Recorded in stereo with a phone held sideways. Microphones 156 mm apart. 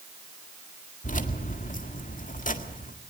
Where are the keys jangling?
55° left (ahead or behind), 1.8 m.